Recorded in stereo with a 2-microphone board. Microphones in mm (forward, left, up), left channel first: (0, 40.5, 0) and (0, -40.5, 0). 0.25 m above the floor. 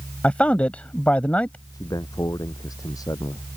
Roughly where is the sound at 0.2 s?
Centre.